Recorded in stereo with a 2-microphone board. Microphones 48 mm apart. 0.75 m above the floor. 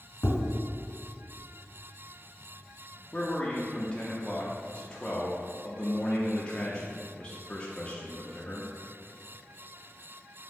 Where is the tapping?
60° left (ahead or behind), 1.0 m.